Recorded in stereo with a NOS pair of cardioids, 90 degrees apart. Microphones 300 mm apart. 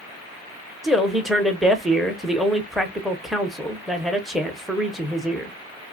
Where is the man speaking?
Straight ahead, 0.7 m.